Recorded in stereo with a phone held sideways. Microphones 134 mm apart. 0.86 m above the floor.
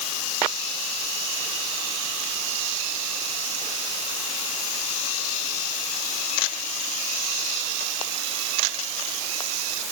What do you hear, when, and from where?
Only background noise.